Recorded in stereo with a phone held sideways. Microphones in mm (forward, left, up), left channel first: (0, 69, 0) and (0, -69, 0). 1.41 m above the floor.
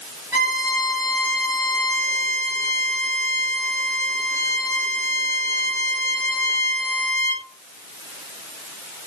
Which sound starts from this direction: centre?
A violin, at 0.3 s.